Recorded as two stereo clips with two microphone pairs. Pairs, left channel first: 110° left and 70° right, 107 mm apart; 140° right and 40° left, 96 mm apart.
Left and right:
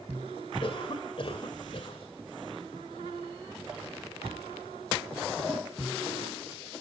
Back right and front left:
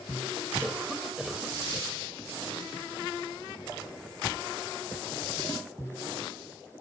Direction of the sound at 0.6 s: 125° left.